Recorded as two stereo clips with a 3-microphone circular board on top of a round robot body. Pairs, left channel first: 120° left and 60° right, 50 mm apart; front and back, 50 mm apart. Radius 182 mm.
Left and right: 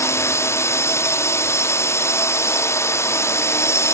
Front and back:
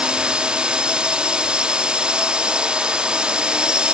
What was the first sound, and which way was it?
A drone, 110° left.